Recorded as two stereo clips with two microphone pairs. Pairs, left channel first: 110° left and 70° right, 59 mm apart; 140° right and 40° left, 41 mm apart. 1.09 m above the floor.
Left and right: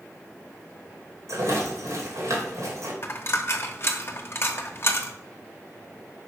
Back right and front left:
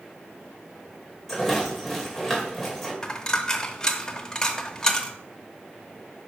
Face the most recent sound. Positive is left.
turn(degrees=150)